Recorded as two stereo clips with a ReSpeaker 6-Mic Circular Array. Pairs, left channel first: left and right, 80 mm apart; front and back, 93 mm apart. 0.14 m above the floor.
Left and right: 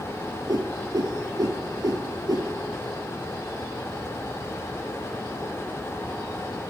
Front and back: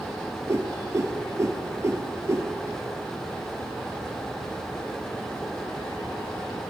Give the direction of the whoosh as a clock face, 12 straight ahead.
4 o'clock.